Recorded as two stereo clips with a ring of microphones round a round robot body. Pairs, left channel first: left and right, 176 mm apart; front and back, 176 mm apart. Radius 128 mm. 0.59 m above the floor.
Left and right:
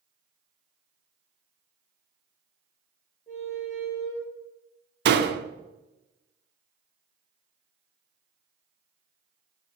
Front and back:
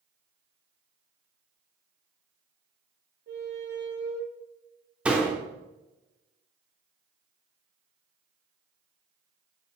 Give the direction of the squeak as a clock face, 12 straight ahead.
7 o'clock.